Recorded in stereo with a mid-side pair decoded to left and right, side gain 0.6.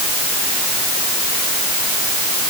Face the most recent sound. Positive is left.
No sound to turn to.